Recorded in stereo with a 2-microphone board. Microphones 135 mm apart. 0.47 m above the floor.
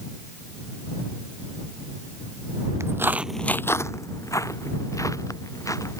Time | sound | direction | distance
2.8 | footsteps | 20° right (ahead or behind) | ?